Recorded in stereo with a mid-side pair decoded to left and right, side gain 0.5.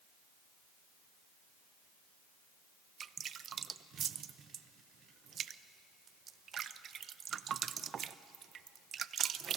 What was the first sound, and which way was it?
Dripping, 50° right.